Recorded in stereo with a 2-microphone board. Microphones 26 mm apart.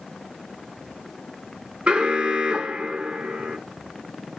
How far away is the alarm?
About 0.8 m.